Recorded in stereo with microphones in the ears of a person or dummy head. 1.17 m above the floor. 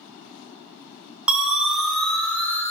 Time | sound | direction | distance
1.3 | a siren | 5° right (ahead or behind) | 4 m